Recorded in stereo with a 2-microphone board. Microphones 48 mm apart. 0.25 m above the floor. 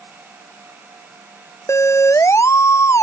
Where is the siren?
85° left.